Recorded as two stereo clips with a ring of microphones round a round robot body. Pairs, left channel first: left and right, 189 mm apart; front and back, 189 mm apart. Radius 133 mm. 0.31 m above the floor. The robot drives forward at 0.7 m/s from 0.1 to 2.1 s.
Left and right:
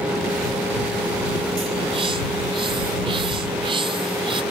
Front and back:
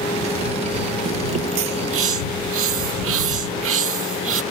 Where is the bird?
160° right; by 4.4 s 165° right.